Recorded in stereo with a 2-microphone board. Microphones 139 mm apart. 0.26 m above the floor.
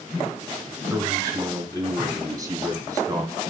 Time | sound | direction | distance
0.9 | a man speaking | 25° right (ahead or behind) | 2 m